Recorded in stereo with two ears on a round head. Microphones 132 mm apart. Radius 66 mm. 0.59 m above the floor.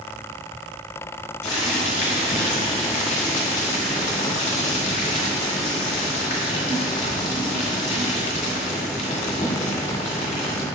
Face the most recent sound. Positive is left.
turn(degrees=50)  # may be behind; listen again after turning